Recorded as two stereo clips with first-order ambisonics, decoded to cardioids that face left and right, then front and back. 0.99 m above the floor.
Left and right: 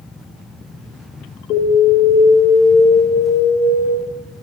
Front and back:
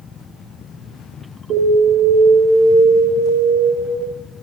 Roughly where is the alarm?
Behind left.